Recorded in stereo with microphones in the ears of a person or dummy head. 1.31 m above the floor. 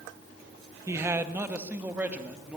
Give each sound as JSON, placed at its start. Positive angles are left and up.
{"t": 0.9, "sound": "a man speaking", "side_deg": -15, "distance_m": 1.2}